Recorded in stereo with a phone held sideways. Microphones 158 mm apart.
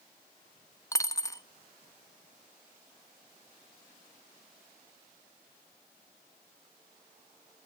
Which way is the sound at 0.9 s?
20° left (ahead or behind).